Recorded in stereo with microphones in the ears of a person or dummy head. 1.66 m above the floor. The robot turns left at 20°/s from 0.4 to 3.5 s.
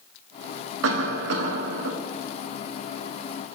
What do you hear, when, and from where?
0.8 s a cough: 75° right (ahead or behind), 0.9 m; by 1.9 s 60° right (ahead or behind), 0.9 m